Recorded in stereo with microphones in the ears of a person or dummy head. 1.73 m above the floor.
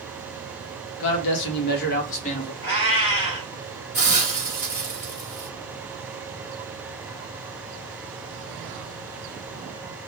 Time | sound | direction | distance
1.0 | a man speaking | 75° left (ahead or behind) | 1.1 m
2.6 | a cat meowing | 45° left (ahead or behind) | 2.5 m
3.9 | a hiss | 25° left (ahead or behind) | 1.3 m